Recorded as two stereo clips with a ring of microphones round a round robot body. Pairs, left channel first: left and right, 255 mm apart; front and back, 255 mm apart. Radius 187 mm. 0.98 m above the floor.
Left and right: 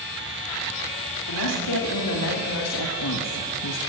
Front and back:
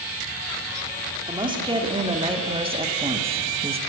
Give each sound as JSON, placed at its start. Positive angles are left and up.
{"t": 1.3, "sound": "a woman speaking", "azimuth_deg": 110, "distance_m": 3.0}